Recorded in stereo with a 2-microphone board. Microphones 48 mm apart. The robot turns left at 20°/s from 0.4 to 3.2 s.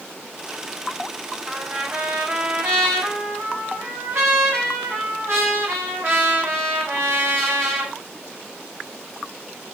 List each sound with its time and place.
1.5 s a trumpet: 25° right, 2 m; by 8.0 s 60° right, 2 m